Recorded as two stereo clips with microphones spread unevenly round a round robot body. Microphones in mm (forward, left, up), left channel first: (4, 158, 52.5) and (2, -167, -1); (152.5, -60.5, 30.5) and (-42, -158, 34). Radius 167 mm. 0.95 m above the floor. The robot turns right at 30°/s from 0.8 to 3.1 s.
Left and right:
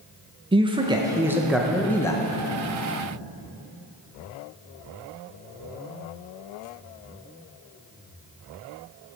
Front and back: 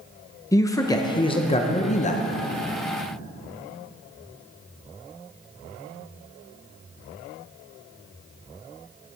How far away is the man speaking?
About 0.8 m.